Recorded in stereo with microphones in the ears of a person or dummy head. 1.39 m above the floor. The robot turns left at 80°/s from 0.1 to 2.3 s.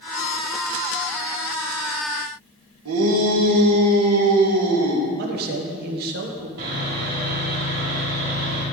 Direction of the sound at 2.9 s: 85° right.